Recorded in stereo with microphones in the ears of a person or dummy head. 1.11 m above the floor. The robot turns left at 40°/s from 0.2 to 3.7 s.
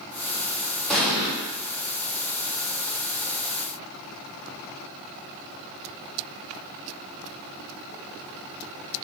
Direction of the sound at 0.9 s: 10° left (ahead or behind).